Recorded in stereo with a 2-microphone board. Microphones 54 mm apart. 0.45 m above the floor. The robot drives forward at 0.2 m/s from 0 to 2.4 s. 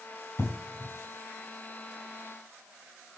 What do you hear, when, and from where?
0.4 s an explosion: 75° left (ahead or behind), 4.5 m